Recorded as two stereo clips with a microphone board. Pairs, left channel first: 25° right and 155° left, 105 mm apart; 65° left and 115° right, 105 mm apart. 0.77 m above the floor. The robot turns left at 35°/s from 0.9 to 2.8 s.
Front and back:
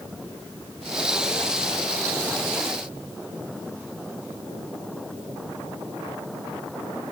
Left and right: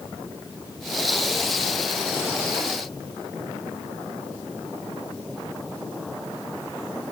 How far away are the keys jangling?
I don't hear keys jangling.